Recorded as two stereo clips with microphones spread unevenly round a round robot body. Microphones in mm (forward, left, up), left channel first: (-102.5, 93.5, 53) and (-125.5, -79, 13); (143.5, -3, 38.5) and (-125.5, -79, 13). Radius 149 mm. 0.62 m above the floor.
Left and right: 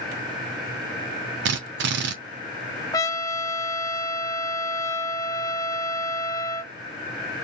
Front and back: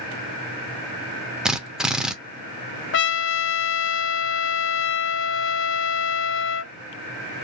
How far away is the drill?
About 0.7 m.